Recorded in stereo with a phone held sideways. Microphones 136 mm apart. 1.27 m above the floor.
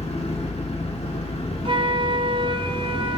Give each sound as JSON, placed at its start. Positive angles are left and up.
{"t": 0.0, "sound": "an engine running", "side_deg": 45, "distance_m": 1.1}
{"t": 1.6, "sound": "a flute", "side_deg": -40, "distance_m": 0.6}